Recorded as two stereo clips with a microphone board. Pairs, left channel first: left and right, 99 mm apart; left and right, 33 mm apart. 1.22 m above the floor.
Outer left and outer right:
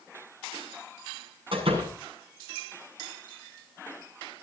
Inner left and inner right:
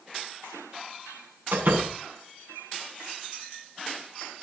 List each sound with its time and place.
1.5 s a door slam: 60° right (ahead or behind), 8 m